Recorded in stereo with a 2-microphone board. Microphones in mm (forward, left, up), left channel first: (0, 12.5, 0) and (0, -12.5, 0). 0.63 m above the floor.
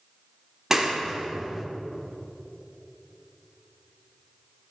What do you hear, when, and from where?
0.7 s a clap: 15° right (ahead or behind), 1.4 m